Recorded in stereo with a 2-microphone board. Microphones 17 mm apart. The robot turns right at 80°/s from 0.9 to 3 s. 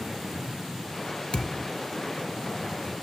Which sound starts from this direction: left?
A thud, at 1.3 s.